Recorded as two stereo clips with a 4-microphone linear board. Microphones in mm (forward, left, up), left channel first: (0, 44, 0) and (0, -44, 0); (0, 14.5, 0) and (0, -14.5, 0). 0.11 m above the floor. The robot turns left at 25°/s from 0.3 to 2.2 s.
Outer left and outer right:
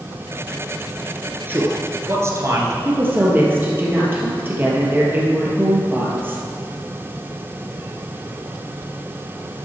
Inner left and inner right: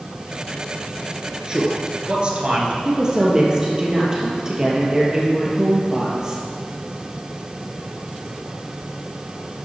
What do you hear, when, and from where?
1.5 s a man speaking: 25° right (ahead or behind), 1.4 m; by 2.8 s 35° right (ahead or behind), 1.4 m
2.9 s a woman speaking: 25° right (ahead or behind), 2.5 m